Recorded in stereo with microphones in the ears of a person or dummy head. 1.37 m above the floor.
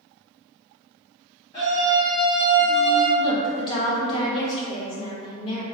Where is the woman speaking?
25° left (ahead or behind), 0.8 m.